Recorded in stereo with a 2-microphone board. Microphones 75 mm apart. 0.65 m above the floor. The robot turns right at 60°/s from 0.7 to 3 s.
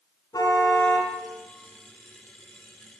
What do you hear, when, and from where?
0.3 s a car horn: 60° left (ahead or behind), 3 m; by 1.1 s 35° left (ahead or behind), 3 m